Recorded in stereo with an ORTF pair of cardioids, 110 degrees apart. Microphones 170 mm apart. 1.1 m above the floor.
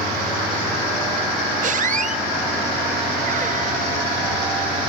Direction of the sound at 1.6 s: 50° right.